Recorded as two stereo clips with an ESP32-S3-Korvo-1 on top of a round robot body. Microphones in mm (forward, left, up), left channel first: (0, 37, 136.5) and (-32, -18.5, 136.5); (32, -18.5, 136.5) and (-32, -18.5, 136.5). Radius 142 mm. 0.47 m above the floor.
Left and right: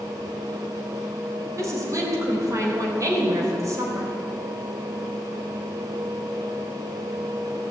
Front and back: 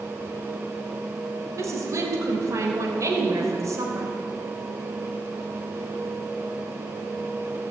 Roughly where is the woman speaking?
Behind right.